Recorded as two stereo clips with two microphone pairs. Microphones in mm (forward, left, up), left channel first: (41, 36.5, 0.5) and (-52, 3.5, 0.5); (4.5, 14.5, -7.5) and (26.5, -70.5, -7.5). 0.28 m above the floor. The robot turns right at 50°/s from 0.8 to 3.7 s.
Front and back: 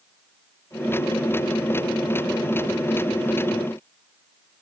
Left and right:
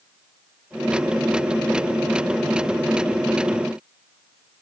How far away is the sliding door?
No sliding door in this recording.